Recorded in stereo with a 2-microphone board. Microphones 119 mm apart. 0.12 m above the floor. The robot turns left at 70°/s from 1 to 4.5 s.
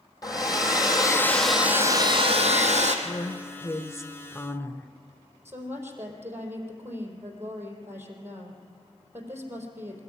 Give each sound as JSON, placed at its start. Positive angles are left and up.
{"t": 0.2, "sound": "a hair dryer", "azimuth_deg": 35, "distance_m": 2.0}
{"t": 3.0, "sound": "a woman speaking", "side_deg": 10, "distance_m": 1.1}
{"t": 5.5, "sound": "a woman speaking", "side_deg": -20, "distance_m": 4.0}